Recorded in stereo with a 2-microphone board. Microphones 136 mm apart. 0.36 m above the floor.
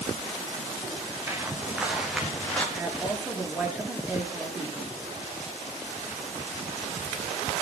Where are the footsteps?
15° right (ahead or behind), 5 m; by 2.6 s 10° left (ahead or behind), 5 m.